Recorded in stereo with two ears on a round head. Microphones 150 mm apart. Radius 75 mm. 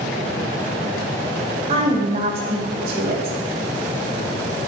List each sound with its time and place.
1.7 s a woman speaking: 40° right (ahead or behind), 3 m